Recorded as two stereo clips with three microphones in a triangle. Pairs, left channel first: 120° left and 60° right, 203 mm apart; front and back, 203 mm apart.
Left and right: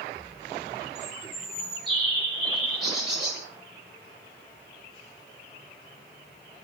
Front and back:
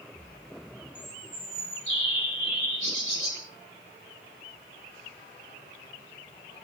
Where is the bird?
150° right, 1.0 m.